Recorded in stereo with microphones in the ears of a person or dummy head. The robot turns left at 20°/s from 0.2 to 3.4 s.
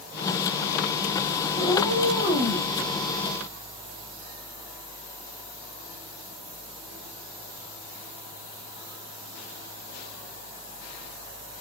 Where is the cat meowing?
25° right (ahead or behind), 1.7 m; by 2.7 s 40° right (ahead or behind), 1.7 m.